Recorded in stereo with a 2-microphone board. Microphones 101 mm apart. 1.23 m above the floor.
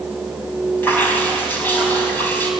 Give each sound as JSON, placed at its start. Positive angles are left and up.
{"t": 0.8, "sound": "dripping", "side_deg": 20, "distance_m": 4.5}